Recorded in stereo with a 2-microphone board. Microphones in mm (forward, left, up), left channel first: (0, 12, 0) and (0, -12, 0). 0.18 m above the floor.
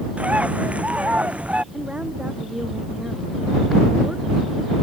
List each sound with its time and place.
0.2 s a bird: 65° right (ahead or behind)
1.7 s a woman speaking: 50° right (ahead or behind)